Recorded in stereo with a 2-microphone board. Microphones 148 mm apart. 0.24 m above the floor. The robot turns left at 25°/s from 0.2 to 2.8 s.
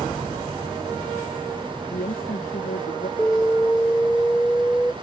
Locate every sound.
1.9 s a woman speaking: 70° left (ahead or behind); by 3.1 s 85° left
3.2 s an alarm: 10° left (ahead or behind)